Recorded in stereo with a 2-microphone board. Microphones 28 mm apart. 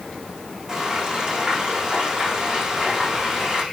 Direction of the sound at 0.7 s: 25° right (ahead or behind).